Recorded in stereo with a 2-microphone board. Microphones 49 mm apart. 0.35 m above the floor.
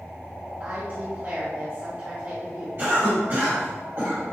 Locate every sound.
0.6 s a woman speaking: 50° right (ahead or behind), 1.5 m
2.8 s a cough: 55° right (ahead or behind), 2.0 m